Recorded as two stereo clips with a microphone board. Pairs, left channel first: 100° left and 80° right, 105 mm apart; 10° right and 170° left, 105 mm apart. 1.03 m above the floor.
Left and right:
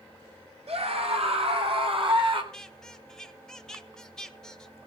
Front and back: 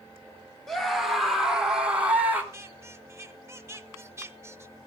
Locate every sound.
0.7 s a scream: 95° right, 3.5 m; by 2.4 s 115° right, 3 m
2.5 s a squeak: 175° left, 0.8 m